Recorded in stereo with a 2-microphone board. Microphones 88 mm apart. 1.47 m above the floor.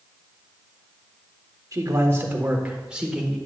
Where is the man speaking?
40° right (ahead or behind), 1.4 m; by 3.4 s 5° right (ahead or behind), 1.7 m.